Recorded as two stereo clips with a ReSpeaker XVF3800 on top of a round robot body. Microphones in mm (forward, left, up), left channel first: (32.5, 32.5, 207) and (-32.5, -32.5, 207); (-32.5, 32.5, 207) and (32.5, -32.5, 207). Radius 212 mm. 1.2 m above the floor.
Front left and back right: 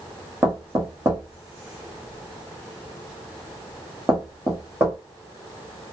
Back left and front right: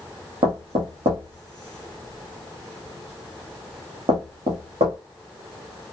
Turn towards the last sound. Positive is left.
turn(degrees=-65)